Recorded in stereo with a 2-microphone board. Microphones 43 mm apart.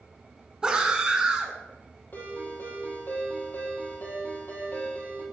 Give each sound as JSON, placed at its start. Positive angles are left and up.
{"t": 0.6, "sound": "a scream", "side_deg": -20, "distance_m": 1.3}
{"t": 2.1, "sound": "a ringtone", "side_deg": 50, "distance_m": 3.0}